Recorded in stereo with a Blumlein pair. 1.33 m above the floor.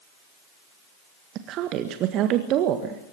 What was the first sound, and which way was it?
A woman speaking, 35° right.